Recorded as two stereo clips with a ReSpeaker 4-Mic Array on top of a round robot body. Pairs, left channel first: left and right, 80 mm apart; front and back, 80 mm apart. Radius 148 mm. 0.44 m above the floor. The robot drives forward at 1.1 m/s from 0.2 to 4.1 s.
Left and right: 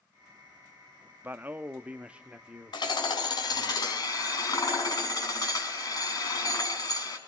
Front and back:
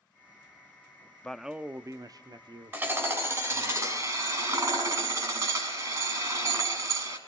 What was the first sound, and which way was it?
A man speaking, 60° right.